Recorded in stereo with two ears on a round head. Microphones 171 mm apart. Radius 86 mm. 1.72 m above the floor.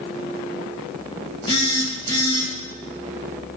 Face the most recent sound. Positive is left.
turn(degrees=30)  # may be behind; listen again after turning